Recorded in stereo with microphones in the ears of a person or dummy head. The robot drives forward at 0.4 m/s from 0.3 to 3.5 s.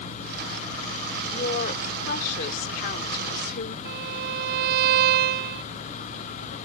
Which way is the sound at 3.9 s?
50° right (ahead or behind).